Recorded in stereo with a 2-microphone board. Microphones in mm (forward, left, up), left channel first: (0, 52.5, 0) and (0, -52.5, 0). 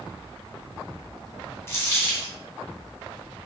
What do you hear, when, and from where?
1.7 s a dropped coin: 25° left (ahead or behind), 0.8 m